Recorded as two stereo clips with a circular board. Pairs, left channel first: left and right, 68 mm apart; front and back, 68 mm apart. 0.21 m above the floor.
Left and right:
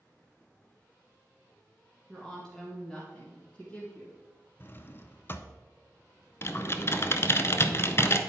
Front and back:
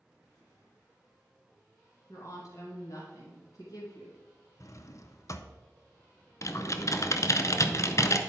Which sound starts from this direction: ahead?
A woman speaking, at 2.1 s.